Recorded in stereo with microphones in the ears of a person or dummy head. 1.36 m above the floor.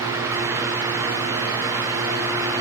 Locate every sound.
Only background noise.